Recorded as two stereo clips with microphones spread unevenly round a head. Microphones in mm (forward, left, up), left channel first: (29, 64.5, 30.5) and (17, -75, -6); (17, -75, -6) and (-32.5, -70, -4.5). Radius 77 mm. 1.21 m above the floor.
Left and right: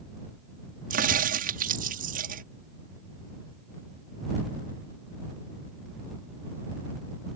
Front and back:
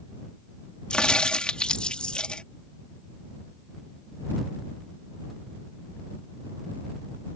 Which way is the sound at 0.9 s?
75° right.